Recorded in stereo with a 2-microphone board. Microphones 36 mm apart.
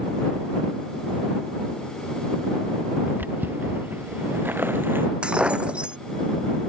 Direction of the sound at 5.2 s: 30° right (ahead or behind).